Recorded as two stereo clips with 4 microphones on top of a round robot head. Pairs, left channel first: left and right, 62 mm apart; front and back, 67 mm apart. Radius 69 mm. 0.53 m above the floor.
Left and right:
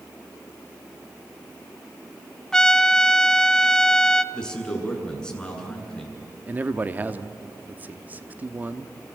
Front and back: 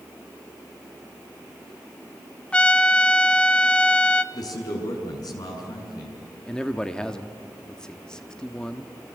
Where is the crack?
I don't hear a crack.